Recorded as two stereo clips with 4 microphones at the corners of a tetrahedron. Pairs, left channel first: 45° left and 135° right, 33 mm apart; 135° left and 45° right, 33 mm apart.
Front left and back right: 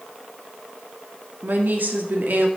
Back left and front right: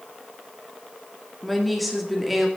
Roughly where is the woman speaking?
Behind right.